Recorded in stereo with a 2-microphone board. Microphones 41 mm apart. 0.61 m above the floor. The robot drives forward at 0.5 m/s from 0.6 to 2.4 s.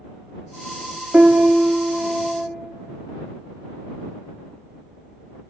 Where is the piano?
25° right (ahead or behind), 0.6 m; by 2.5 s 30° right (ahead or behind), 0.6 m.